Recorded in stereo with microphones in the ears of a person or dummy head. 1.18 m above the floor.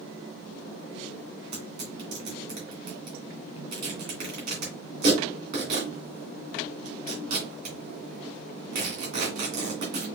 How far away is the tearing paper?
About 2.5 m.